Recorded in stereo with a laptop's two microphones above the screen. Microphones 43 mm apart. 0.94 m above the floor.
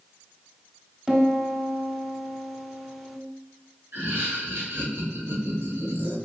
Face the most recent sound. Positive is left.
turn(degrees=-65)  # may be behind; listen again after turning